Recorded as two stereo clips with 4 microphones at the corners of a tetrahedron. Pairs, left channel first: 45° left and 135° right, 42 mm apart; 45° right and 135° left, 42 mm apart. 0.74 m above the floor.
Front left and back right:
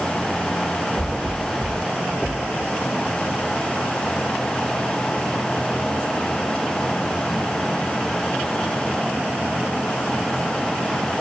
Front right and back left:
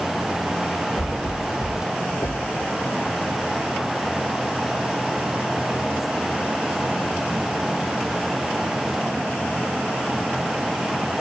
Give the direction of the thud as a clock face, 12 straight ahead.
2 o'clock.